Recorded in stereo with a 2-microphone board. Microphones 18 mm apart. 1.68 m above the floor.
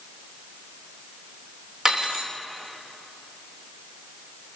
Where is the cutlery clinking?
40° right (ahead or behind), 3 m.